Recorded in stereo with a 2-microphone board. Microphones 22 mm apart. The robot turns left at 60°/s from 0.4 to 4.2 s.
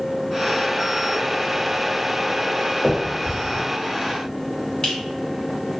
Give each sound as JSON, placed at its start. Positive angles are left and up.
{"t": 2.8, "sound": "a finger snap", "side_deg": 30, "distance_m": 1.4}